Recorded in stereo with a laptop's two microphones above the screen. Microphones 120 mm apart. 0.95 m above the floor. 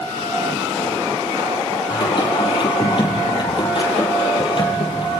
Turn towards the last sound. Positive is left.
turn(degrees=45)  # may be behind; listen again after turning